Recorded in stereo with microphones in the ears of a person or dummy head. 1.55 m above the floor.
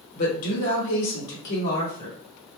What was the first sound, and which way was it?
A woman speaking, 40° left (ahead or behind).